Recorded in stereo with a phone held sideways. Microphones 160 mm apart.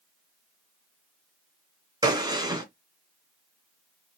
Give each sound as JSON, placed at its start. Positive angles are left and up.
{"t": 2.0, "sound": "a gunshot", "side_deg": -25, "distance_m": 1.5}